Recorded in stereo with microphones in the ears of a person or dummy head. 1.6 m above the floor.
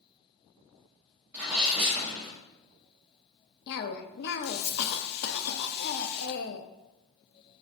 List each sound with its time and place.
1.3 s a sneeze: 5° right (ahead or behind), 1.2 m
3.7 s a cough: 55° left (ahead or behind), 0.5 m